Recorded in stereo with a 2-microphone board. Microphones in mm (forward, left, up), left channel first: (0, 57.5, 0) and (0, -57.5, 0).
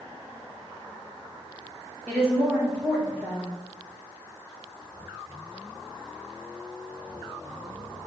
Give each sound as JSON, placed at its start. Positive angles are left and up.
{"t": 2.1, "sound": "a woman speaking", "side_deg": -5, "distance_m": 1.8}